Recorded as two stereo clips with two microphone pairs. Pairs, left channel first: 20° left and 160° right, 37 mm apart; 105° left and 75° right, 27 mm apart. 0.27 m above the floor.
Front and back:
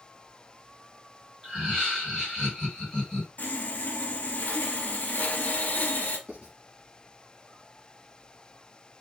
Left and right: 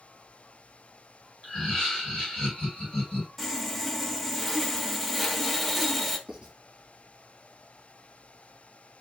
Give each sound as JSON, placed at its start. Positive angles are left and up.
{"t": 1.4, "sound": "laughter", "azimuth_deg": 120, "distance_m": 1.9}
{"t": 3.4, "sound": "sawing", "azimuth_deg": 15, "distance_m": 0.5}
{"t": 6.3, "sound": "writing", "azimuth_deg": -120, "distance_m": 1.1}